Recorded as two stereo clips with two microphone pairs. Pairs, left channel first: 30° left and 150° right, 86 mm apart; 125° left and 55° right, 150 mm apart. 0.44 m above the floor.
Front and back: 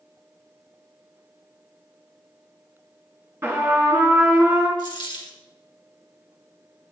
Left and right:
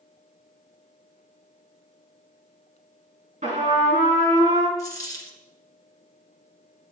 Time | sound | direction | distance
3.4 | a trumpet | 85° right | 2.5 m
4.8 | a dropped coin | 55° left | 1.9 m